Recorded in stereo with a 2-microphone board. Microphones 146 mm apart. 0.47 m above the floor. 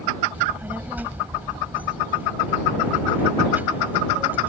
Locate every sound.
0.3 s a child speaking: 15° right (ahead or behind)